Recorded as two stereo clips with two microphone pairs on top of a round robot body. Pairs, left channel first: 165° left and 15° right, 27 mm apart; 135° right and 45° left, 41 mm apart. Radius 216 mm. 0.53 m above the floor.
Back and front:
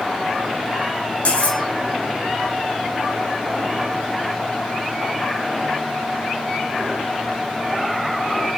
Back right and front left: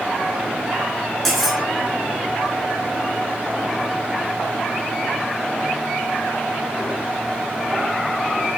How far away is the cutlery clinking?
About 3.5 m.